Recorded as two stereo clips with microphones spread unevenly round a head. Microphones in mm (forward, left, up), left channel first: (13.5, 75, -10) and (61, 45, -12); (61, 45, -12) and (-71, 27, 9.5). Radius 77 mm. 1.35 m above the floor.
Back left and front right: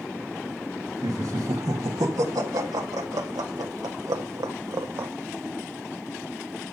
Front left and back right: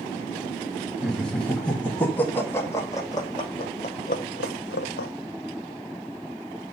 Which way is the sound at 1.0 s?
80° right.